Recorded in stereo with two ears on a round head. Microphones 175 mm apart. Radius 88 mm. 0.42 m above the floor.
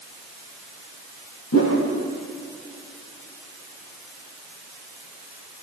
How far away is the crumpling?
I don't hear crumpling.